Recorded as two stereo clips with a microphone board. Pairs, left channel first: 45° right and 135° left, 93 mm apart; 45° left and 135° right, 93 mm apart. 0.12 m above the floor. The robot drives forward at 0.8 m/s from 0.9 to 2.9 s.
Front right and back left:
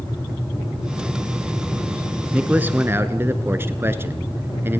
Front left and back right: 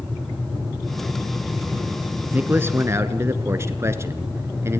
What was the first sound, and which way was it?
A man speaking, 170° right.